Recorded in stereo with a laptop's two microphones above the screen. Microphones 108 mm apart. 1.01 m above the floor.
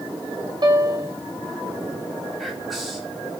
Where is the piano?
40° right (ahead or behind), 0.6 m.